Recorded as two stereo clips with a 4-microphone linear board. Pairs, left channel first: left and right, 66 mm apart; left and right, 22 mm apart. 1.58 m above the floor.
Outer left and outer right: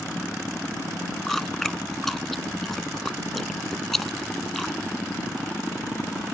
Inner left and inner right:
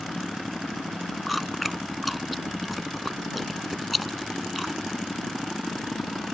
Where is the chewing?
5° left (ahead or behind).